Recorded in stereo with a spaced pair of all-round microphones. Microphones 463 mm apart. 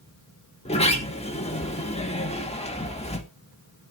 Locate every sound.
0.7 s a sliding door: 15° left (ahead or behind), 1.7 m